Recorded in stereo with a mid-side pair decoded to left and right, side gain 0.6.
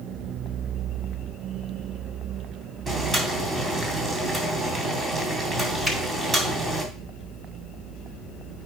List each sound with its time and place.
2.9 s boiling: 25° right, 3 m
5.8 s a finger snap: 20° right, 6 m